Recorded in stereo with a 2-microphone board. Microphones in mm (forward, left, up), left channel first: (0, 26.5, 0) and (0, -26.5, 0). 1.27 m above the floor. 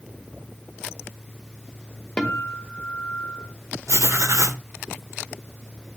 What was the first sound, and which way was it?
A guitar, 20° left (ahead or behind).